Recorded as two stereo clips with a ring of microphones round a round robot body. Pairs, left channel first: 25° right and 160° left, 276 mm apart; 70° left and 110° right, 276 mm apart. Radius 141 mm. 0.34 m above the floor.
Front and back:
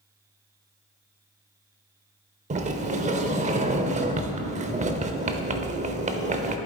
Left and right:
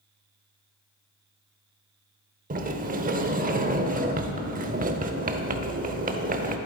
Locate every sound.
2.5 s a sliding door: 155° right, 0.7 m